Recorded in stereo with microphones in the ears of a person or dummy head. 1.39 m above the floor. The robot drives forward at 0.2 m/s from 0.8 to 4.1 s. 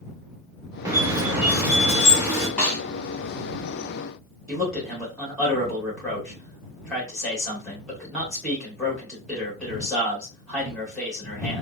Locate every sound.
0.8 s a squeak: 10° right (ahead or behind), 0.5 m
2.6 s a snare drum: 5° left (ahead or behind), 1.0 m
4.5 s a man speaking: 5° left (ahead or behind), 1.7 m